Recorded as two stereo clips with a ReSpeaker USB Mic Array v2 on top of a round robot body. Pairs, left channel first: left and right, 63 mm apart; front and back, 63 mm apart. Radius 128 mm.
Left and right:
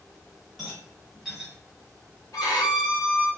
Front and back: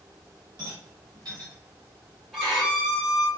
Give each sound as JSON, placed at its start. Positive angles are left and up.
{"t": 0.6, "sound": "a rattle", "azimuth_deg": -175, "distance_m": 1.0}
{"t": 2.3, "sound": "a violin", "azimuth_deg": 100, "distance_m": 1.7}